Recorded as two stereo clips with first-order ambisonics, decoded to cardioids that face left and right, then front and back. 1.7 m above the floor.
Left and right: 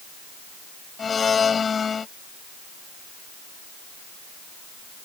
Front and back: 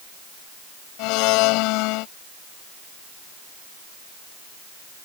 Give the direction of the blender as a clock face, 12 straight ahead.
11 o'clock.